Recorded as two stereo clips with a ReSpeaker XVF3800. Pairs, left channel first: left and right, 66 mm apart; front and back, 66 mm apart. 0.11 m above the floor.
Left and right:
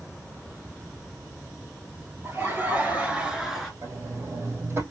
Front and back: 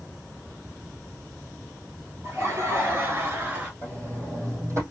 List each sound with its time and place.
2.2 s laughter: 140° right, 2.5 m; by 3.7 s 170° left, 1.4 m
3.8 s a sliding door: 140° right, 3 m